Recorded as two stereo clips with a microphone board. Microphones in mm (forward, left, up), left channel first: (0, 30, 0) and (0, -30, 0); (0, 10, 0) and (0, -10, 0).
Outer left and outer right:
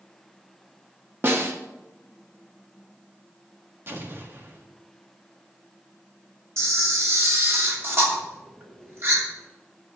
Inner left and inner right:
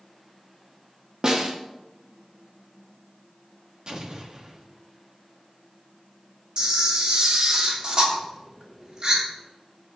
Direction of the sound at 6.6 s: 45° right (ahead or behind).